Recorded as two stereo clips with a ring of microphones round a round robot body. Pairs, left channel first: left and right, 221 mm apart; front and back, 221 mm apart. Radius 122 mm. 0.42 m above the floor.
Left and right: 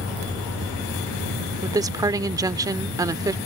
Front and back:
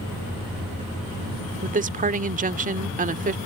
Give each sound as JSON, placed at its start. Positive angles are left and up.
{"t": 1.6, "sound": "a woman speaking", "azimuth_deg": -155}